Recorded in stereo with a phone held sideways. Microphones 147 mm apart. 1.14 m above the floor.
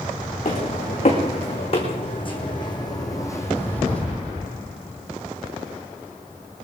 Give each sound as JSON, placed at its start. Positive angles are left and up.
{"t": 0.5, "sound": "footsteps", "side_deg": 50, "distance_m": 4.5}